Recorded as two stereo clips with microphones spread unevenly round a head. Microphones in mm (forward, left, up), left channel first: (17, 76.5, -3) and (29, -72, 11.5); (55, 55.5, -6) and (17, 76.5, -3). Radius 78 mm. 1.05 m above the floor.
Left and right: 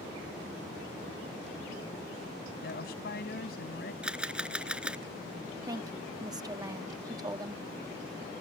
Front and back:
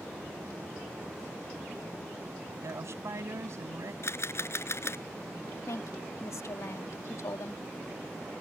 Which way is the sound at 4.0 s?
Straight ahead.